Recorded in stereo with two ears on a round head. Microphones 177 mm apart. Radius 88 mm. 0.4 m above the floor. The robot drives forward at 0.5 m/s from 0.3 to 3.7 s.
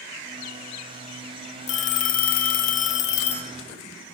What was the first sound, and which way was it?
A phone ringing, 35° left (ahead or behind).